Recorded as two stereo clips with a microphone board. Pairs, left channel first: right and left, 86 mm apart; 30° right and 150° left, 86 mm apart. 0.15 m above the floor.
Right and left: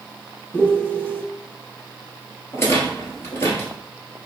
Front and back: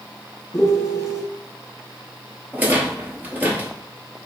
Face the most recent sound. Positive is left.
turn(degrees=-145)